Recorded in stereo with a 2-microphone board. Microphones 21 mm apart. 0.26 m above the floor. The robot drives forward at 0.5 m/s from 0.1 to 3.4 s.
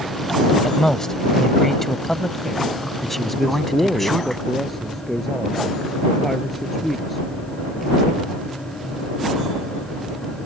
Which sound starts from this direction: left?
A man speaking, at 0.6 s.